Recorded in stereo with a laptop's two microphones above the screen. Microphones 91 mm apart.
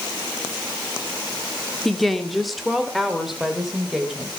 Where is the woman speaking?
Centre (ahead or behind), 1.9 m; by 4.3 s 5° right (ahead or behind), 4 m.